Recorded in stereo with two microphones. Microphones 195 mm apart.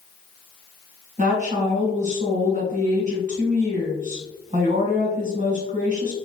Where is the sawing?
No sawing in this recording.